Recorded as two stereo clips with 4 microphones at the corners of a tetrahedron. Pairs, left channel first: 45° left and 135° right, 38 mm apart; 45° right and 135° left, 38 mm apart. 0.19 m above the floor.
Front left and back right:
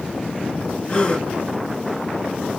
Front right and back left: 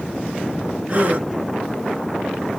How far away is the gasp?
About 1.9 m.